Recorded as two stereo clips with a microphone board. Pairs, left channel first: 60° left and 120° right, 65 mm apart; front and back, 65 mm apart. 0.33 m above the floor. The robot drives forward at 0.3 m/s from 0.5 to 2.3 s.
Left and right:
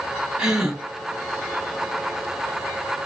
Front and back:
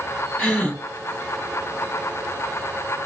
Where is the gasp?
55° right, 1.7 m; by 0.8 s 60° right, 1.7 m.